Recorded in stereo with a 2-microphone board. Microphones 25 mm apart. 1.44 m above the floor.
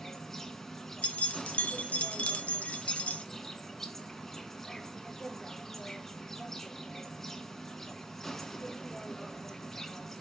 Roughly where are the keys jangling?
Left.